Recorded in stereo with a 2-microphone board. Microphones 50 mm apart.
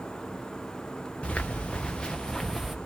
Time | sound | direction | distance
1.2 | footsteps | 25° left (ahead or behind) | 1.6 m